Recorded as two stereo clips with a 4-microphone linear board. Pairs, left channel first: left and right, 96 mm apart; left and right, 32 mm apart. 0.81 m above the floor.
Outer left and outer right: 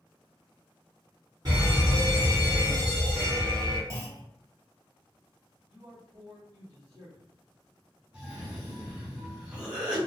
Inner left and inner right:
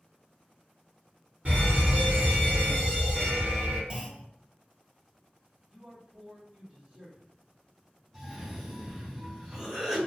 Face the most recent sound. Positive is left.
turn(degrees=-10)  # may be behind; listen again after turning